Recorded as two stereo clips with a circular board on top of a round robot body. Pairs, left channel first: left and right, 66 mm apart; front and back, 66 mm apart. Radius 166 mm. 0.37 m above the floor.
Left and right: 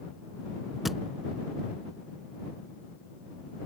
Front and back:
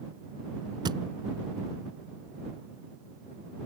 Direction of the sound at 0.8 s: Straight behind.